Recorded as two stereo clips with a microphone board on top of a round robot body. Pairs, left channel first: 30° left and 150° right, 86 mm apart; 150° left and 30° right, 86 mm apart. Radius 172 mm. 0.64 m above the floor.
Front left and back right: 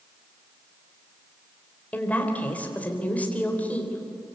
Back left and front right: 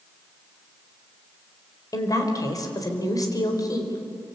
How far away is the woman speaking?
About 4 m.